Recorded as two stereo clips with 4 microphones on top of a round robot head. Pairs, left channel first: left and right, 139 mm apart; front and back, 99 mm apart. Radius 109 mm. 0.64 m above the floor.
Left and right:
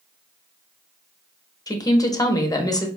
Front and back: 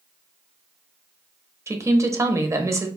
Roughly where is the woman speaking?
Behind left.